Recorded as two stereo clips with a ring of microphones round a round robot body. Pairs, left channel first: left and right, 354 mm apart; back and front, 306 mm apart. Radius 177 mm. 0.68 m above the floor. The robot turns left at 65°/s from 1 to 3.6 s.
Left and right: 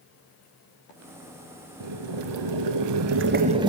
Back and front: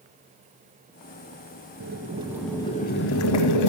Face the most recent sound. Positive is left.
turn(degrees=-165)